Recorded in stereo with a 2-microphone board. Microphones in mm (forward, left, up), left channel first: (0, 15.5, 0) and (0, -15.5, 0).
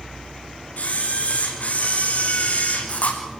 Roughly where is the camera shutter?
Left.